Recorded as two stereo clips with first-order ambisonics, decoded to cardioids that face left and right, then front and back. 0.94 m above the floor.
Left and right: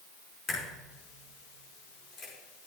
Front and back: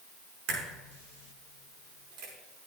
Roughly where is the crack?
Behind left.